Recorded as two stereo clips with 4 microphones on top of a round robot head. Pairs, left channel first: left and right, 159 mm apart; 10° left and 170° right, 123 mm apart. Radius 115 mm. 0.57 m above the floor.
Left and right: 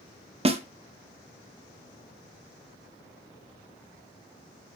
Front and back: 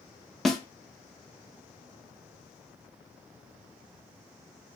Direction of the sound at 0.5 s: 75° right.